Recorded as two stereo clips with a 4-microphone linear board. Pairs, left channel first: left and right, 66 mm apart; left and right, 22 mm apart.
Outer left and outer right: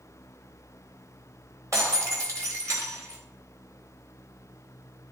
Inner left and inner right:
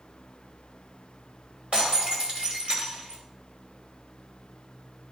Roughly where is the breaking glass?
Right.